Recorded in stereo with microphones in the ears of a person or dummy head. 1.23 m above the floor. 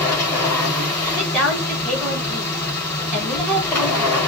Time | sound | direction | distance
0.0 | a machine running | 10° left (ahead or behind) | 4 m
1.2 | a woman speaking | centre (ahead or behind) | 4 m